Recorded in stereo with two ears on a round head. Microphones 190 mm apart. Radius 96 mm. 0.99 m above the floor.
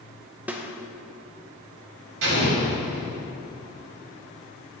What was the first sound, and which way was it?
A snare drum, 10° right (ahead or behind).